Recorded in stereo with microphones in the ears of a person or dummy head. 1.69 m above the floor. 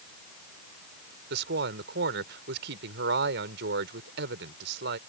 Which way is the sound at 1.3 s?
65° right (ahead or behind).